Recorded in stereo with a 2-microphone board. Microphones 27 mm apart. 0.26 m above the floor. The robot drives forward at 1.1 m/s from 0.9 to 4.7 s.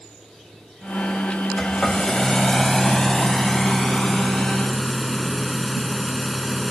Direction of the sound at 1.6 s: 20° left (ahead or behind).